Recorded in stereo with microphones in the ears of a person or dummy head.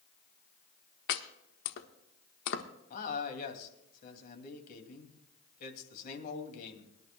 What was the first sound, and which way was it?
Chopping, 60° left (ahead or behind).